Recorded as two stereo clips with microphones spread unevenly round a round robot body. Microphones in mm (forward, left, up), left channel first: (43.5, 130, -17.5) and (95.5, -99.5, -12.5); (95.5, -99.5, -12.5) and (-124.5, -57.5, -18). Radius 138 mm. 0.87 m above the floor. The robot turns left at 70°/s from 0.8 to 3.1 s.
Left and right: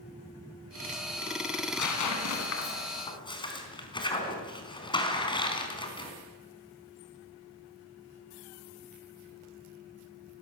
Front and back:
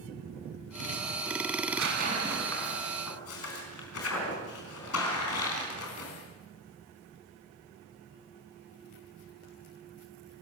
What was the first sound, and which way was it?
Tearing paper, 140° left.